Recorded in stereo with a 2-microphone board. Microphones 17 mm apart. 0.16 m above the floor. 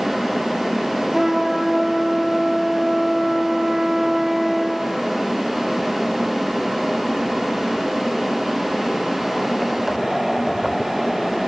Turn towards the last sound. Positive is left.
turn(degrees=-20)  # may be behind; listen again after turning